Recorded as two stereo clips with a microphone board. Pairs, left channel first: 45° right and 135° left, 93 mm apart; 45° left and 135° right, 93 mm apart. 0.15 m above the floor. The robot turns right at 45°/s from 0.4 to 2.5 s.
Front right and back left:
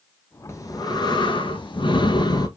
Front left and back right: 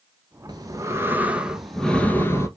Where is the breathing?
100° right, 1.5 m; by 2.5 s 10° right, 1.5 m.